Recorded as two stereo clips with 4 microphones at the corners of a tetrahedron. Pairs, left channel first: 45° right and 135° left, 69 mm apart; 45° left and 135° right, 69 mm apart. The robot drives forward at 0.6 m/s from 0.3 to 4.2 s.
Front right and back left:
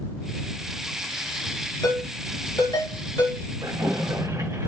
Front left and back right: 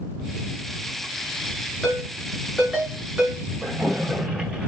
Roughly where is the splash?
Behind left.